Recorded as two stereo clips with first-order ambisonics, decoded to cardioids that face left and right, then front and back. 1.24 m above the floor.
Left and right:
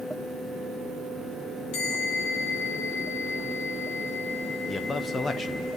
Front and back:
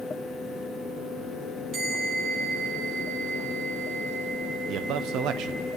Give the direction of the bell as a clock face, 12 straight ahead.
8 o'clock.